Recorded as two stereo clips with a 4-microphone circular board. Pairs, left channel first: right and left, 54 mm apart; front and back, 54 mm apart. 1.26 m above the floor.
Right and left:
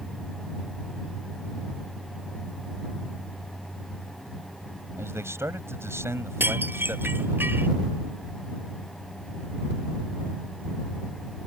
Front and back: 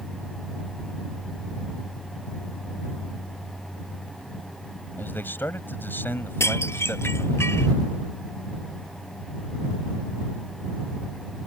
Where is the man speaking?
55° left.